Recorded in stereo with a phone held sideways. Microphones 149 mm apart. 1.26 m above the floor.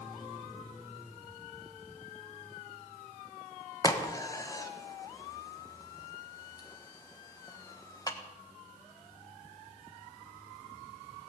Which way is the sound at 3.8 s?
25° left (ahead or behind).